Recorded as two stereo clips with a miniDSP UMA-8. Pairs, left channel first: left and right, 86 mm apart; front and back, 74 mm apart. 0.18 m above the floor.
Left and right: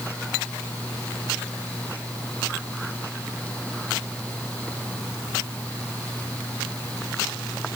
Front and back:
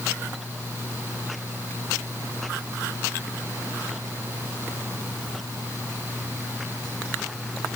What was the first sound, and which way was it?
Only background noise.